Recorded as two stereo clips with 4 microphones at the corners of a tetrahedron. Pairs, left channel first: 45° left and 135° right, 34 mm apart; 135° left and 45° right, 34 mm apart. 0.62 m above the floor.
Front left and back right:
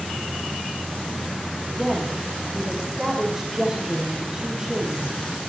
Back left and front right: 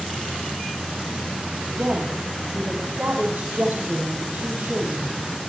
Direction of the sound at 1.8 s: 60° right.